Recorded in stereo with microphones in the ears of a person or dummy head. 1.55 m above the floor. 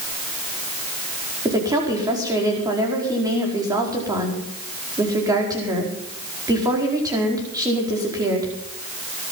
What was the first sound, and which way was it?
A woman speaking, 20° right (ahead or behind).